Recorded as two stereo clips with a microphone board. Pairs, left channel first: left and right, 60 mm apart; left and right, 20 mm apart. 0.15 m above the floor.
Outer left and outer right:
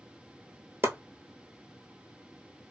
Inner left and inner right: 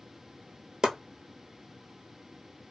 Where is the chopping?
40° right (ahead or behind), 0.7 m.